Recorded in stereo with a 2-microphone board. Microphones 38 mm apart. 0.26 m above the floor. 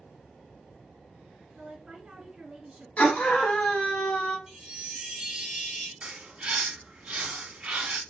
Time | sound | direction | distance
1.5 | a woman speaking | 15° right (ahead or behind) | 2 m
3.0 | a scream | 40° left (ahead or behind) | 1.5 m
4.5 | a chime | 10° right (ahead or behind) | 1.9 m
6.0 | a bird | 25° right (ahead or behind) | 1.5 m